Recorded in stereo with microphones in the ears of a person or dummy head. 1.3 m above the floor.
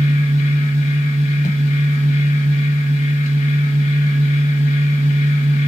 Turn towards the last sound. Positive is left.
turn(degrees=35)  # may be behind; listen again after turning